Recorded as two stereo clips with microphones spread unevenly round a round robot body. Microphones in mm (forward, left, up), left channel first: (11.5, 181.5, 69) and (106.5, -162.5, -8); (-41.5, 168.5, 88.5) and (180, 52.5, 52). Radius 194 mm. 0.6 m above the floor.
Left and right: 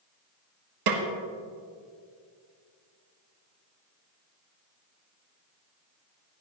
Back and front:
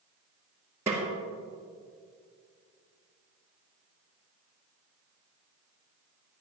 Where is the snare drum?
115° right, 1.4 m.